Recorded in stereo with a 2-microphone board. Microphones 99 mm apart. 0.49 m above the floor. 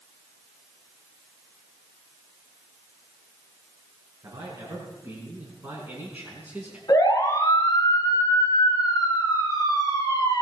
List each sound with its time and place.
4.2 s a man speaking: 35° right (ahead or behind), 6 m; by 6.8 s 15° right (ahead or behind), 5 m
6.9 s a siren: 40° left (ahead or behind), 6 m